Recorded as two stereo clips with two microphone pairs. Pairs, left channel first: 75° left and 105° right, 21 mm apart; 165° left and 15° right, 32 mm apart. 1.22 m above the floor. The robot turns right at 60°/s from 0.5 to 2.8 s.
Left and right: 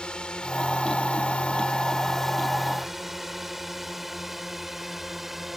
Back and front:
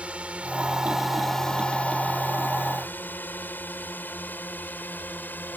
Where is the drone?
35° left; by 5.6 s 175° left.